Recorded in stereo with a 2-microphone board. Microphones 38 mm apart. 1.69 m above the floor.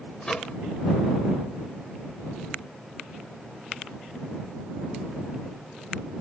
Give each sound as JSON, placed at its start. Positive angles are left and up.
{"t": 0.2, "sound": "a microwave", "side_deg": 25}